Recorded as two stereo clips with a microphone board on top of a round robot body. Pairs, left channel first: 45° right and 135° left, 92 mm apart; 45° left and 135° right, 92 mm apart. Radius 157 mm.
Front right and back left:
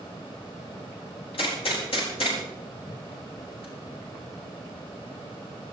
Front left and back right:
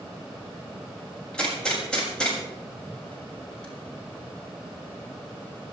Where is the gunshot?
35° right, 7.5 m.